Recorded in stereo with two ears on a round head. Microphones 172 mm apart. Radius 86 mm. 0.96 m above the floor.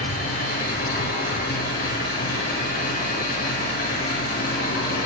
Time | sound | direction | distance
0.0 | an engine running | 50° left (ahead or behind) | 5 m